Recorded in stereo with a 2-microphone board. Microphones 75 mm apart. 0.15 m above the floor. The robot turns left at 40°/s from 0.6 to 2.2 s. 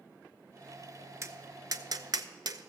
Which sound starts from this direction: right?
Tapping, at 1.2 s.